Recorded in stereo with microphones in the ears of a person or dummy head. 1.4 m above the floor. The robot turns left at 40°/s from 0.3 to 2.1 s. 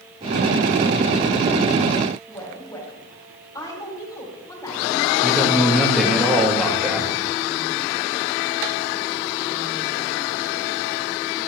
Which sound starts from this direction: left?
A woman speaking, at 2.3 s.